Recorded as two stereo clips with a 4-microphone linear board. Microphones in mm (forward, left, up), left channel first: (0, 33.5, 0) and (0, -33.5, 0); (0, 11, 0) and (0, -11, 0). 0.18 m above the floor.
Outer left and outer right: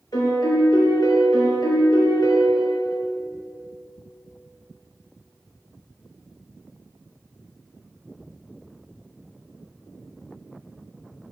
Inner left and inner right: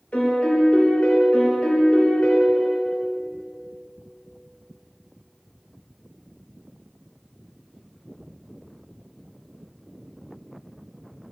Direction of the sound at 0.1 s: 70° left (ahead or behind).